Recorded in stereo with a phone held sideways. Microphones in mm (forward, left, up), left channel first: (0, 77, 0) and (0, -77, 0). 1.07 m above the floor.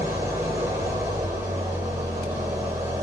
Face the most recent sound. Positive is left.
turn(degrees=-20)  # may be behind; listen again after turning